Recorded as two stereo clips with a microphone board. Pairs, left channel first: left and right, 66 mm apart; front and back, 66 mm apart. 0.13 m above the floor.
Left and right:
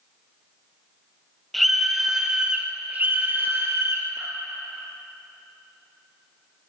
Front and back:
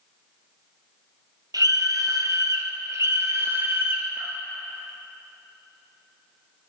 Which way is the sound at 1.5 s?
Straight behind.